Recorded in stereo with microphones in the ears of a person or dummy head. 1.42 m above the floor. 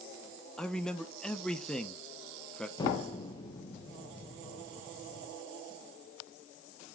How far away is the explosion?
About 1.0 m.